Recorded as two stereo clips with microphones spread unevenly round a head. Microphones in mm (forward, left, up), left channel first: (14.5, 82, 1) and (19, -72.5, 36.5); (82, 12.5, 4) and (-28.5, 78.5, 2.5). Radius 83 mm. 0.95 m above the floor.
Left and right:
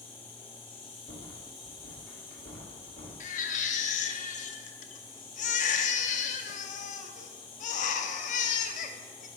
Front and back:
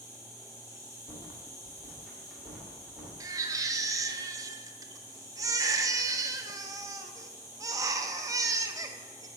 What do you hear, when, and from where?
0.0 s an insect: 35° left, 1.8 m
1.1 s a rattle: 65° left, 2 m
3.2 s a baby crying: 90° left, 0.6 m